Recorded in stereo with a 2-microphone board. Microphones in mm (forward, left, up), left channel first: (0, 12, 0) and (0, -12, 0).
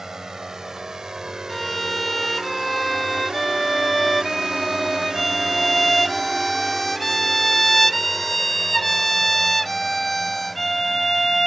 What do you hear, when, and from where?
0.0 s a drone: 20° right (ahead or behind); by 11.5 s 5° right (ahead or behind)
1.5 s a violin: 10° left (ahead or behind)